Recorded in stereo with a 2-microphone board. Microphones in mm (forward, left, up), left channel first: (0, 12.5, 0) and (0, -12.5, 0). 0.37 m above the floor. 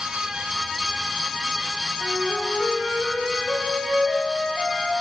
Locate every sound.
2.0 s a flute: 60° left (ahead or behind), 6.5 m